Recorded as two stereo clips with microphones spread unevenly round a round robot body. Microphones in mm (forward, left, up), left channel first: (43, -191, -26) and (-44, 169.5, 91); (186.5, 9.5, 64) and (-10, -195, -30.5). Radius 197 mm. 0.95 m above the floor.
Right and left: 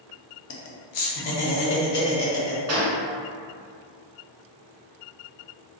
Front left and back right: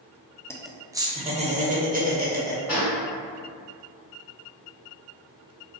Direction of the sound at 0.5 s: 45° right.